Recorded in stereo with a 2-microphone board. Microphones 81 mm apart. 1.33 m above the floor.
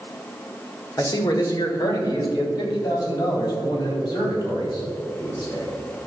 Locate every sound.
1.0 s a man speaking: 40° left (ahead or behind), 1.8 m; by 5.7 s 50° left (ahead or behind), 5.5 m